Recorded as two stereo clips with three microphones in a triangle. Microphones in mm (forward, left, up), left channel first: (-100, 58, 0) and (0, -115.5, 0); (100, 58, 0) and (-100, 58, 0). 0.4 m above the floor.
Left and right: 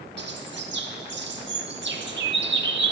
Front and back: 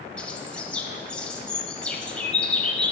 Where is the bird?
85° right, 0.7 m.